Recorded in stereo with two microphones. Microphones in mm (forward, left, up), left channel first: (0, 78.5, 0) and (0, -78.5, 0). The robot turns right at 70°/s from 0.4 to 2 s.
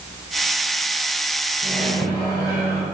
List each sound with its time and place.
1.6 s a microwave: 5° right (ahead or behind), 2.5 m; by 2.8 s 20° left (ahead or behind), 2.5 m